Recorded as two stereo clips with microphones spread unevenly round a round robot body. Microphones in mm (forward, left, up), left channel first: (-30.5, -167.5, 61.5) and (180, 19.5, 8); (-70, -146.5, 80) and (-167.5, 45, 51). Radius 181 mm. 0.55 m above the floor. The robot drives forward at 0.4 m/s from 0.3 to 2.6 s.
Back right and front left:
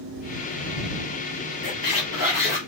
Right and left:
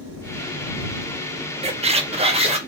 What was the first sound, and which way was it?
A squeak, 175° right.